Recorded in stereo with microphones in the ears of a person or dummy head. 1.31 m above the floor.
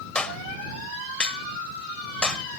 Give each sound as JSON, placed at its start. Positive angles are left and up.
{"t": 0.1, "sound": "a clap", "side_deg": 5}